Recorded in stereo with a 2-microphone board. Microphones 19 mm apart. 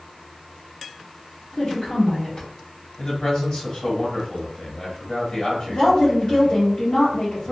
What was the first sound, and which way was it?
A woman speaking, 35° left (ahead or behind).